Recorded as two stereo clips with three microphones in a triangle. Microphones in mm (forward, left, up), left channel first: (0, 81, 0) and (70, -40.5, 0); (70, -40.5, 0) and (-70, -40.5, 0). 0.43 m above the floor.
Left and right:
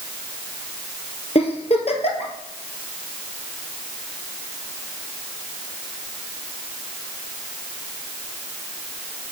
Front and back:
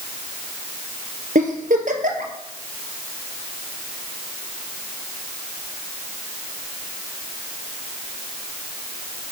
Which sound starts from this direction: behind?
A giggle, at 1.4 s.